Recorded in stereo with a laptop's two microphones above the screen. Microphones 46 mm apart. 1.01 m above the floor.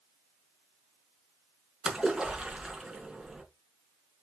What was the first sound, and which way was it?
A splash, 15° right (ahead or behind).